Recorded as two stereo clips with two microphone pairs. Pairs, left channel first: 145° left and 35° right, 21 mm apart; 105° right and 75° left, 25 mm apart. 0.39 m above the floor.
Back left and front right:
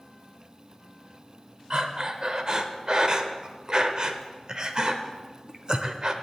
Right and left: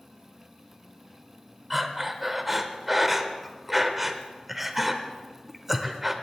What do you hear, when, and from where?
1.7 s breathing: 5° right, 0.8 m